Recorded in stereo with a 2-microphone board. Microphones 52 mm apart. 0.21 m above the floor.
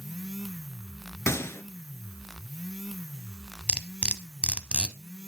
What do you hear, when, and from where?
1.3 s a gunshot: 65° left (ahead or behind), 0.6 m
3.7 s cutlery clinking: 25° right (ahead or behind), 0.6 m